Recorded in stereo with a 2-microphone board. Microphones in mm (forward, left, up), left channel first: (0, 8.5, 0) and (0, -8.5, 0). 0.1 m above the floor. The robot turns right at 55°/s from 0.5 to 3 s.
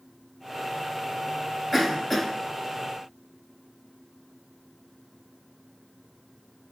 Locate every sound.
1.7 s a cough: 25° left (ahead or behind), 1.2 m; by 2.3 s 15° left (ahead or behind), 1.2 m